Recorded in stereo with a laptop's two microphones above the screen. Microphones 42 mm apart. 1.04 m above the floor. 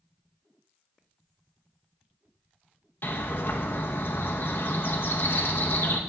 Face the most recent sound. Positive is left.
turn(degrees=55)  # may be behind; listen again after turning